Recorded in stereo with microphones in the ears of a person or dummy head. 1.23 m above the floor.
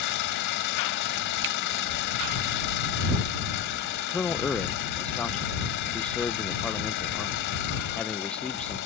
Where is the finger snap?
55° right (ahead or behind).